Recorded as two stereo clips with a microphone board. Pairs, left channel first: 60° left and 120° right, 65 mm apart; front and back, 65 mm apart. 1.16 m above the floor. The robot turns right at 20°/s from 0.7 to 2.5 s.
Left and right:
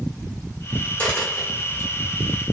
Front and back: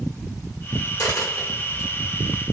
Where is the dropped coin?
10° right, 1.6 m; by 1.9 s 10° left, 1.6 m.